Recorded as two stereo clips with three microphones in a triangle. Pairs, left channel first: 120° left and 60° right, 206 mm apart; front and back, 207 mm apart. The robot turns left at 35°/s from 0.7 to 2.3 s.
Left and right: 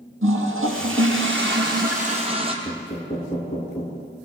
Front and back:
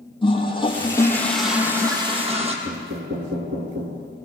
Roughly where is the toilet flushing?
Ahead right.